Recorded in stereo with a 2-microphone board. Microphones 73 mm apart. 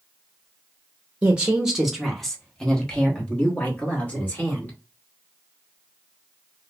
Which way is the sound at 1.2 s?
20° right (ahead or behind).